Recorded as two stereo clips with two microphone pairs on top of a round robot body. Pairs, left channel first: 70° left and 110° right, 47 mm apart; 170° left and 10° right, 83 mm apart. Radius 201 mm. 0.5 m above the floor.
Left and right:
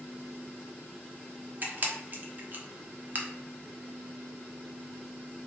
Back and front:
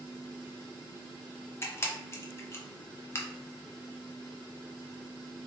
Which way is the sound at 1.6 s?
135° right.